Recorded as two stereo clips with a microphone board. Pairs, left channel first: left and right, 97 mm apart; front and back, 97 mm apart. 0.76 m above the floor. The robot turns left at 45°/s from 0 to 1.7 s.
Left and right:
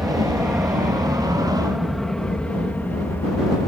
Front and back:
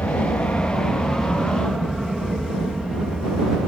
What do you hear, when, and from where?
0.0 s an aircraft: 10° right; by 3.7 s 95° left